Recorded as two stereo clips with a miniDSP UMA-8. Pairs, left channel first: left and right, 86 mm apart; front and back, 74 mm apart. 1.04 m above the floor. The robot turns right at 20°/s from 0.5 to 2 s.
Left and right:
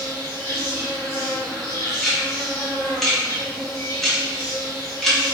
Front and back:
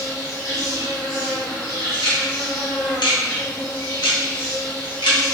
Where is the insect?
25° left, 1.7 m; by 5.3 s 55° left, 1.7 m.